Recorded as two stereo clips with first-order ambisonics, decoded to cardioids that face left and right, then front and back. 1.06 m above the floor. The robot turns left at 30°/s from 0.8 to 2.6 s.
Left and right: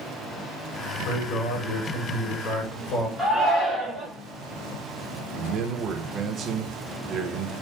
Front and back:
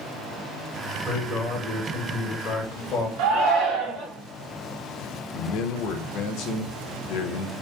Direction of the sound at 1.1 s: 100° left.